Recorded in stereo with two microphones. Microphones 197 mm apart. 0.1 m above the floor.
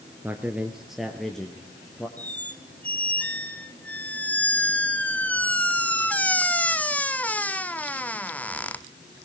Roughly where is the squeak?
Centre.